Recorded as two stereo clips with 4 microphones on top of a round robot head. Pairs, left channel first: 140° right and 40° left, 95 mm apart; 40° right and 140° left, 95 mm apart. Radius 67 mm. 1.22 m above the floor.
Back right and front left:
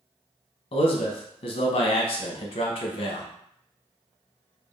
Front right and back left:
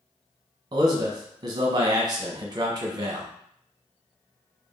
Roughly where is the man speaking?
Behind.